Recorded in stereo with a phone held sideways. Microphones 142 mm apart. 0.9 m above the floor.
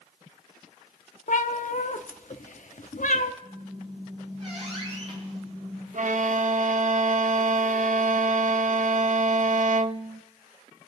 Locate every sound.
1.3 s a cat meowing: 65° left (ahead or behind), 0.7 m
3.4 s a squeak: 45° right (ahead or behind), 6 m
5.9 s a violin: 60° right (ahead or behind), 0.5 m